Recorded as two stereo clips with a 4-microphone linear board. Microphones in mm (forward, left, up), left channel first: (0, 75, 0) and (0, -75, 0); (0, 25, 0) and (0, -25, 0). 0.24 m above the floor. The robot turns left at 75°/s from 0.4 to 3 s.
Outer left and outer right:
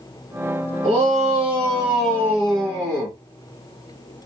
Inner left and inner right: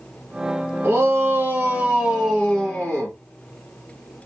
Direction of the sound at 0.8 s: 60° right.